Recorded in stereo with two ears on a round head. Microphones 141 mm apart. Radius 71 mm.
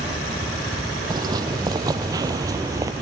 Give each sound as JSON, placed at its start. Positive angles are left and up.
{"t": 1.1, "sound": "footsteps", "side_deg": -25}